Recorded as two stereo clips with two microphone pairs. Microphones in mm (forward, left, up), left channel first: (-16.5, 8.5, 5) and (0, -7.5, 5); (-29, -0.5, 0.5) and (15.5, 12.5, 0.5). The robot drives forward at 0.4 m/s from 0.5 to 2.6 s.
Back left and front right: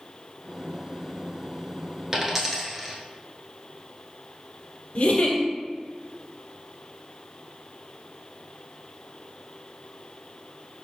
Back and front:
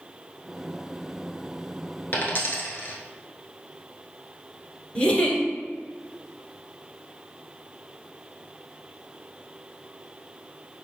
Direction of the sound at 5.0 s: 130° left.